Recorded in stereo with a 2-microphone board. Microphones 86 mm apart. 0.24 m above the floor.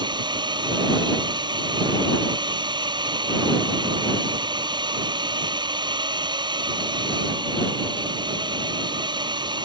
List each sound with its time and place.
0.0 s a drone: 60° right (ahead or behind)